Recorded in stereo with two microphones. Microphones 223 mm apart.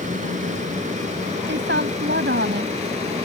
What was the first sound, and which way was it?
An aircraft, 35° right (ahead or behind).